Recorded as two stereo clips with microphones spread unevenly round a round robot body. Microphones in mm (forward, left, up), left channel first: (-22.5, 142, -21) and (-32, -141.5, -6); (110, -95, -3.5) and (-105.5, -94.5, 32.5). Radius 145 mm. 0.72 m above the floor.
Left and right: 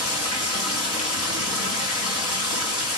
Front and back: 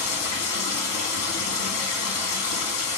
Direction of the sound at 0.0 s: 40° left.